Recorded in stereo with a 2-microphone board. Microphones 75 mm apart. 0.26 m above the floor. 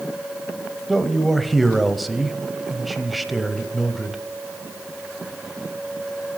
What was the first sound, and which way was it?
A man speaking, centre (ahead or behind).